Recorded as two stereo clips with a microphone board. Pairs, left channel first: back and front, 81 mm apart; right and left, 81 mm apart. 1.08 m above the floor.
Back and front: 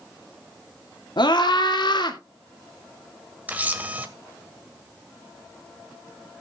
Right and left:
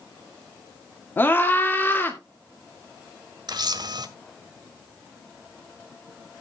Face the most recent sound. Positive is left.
turn(degrees=70)